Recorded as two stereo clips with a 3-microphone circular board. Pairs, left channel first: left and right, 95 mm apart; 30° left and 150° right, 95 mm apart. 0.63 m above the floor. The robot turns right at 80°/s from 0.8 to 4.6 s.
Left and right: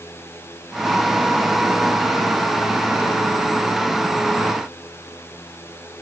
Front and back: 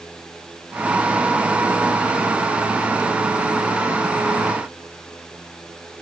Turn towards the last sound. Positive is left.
No sound to turn to.